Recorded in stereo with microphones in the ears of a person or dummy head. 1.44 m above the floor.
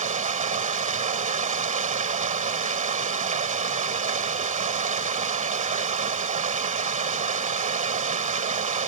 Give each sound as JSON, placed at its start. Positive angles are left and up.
{"t": 0.0, "sound": "running water", "side_deg": -40}